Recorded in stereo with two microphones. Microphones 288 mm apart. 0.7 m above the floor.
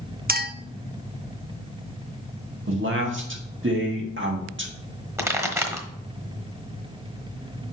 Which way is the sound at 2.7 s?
40° right (ahead or behind).